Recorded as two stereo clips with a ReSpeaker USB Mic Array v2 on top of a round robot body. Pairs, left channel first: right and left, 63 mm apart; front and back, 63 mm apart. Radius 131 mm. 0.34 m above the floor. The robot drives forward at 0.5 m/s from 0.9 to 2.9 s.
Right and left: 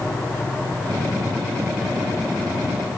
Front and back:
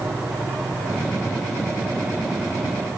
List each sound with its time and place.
Only background noise.